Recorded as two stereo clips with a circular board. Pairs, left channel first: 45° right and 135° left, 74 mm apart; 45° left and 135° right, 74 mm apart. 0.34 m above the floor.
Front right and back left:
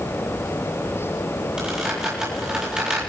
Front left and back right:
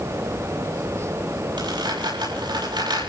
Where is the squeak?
145° right, 7 m.